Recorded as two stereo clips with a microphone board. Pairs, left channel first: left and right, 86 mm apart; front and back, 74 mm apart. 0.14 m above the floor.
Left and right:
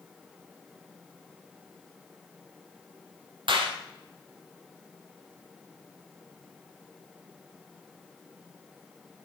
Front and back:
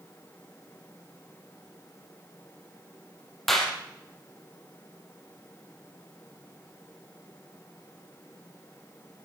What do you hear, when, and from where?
3.5 s a clap: 85° right, 4 m